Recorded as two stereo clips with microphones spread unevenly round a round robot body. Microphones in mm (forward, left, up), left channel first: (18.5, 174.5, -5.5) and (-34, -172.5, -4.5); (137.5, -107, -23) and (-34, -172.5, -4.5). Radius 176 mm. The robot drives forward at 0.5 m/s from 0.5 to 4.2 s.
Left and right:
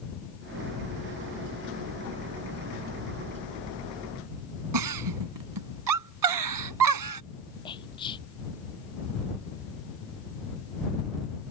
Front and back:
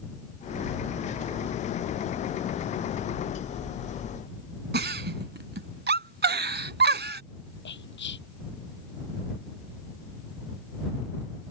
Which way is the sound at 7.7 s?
5° left.